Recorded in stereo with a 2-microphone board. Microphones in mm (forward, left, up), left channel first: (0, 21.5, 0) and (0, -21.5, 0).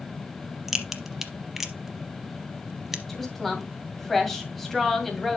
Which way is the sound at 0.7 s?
5° right (ahead or behind).